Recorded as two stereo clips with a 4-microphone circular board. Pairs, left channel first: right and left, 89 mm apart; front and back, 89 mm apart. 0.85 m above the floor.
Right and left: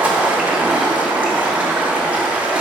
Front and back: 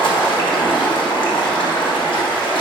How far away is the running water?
About 1.3 m.